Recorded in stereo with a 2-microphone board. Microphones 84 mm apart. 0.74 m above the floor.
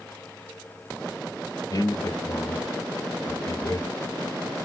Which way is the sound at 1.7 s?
45° left (ahead or behind).